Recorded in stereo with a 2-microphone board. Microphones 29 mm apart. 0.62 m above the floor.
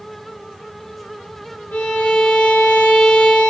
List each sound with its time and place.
1.7 s a violin: 85° left, 4.5 m